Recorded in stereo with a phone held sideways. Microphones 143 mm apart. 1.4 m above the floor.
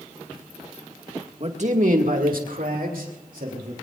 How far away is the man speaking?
About 2 m.